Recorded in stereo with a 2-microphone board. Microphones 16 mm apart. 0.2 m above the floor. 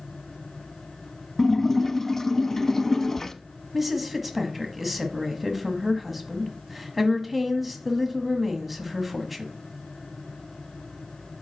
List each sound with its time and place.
1.4 s a splash: 20° left (ahead or behind), 0.7 m
3.7 s a woman speaking: 10° right (ahead or behind), 1.4 m